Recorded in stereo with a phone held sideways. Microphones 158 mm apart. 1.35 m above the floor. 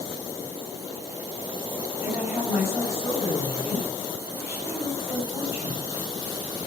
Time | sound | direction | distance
2.0 | a woman speaking | 15° right (ahead or behind) | 9 m